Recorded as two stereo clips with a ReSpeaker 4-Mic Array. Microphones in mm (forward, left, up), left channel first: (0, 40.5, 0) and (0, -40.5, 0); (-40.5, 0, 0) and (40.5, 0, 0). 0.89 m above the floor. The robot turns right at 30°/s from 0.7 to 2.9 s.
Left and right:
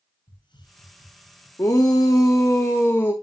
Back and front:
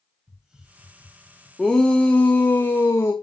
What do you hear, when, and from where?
0.3 s a hiss: 80° left, 4.5 m; by 1.5 s 100° left, 4.5 m
1.6 s a shout: 100° left, 1.2 m; by 3.1 s 135° left, 1.2 m